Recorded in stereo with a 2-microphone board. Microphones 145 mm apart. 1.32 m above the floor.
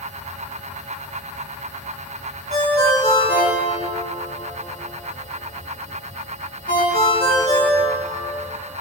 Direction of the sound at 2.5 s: 85° left.